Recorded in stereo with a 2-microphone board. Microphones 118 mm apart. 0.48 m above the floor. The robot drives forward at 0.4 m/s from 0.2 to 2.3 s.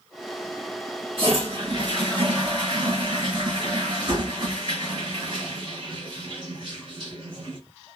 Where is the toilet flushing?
55° right (ahead or behind), 2 m; by 7.6 s 45° right (ahead or behind), 2.5 m.